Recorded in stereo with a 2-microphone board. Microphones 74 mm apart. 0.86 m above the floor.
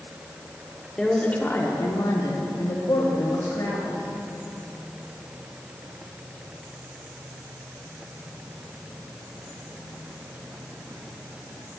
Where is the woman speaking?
5° left (ahead or behind), 1.9 m; by 4.1 s 75° left (ahead or behind), 4.5 m.